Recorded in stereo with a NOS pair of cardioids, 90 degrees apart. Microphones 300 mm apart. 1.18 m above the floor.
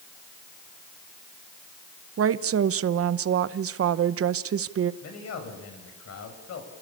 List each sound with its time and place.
2.2 s a woman speaking: 50° right, 0.9 m
5.0 s a man speaking: 55° left, 6 m